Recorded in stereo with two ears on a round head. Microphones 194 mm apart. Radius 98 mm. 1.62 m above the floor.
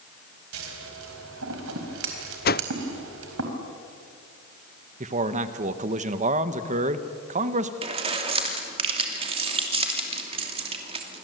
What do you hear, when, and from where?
0.5 s scissors: 70° right (ahead or behind), 4 m
2.5 s a whoosh: 45° left (ahead or behind), 0.5 m
5.0 s a man speaking: 35° right (ahead or behind), 1.3 m
7.8 s keys jangling: 25° right (ahead or behind), 2.5 m